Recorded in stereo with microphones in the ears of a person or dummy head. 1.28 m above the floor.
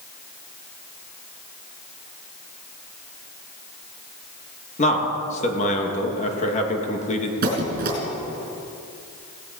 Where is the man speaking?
35° left (ahead or behind), 2 m.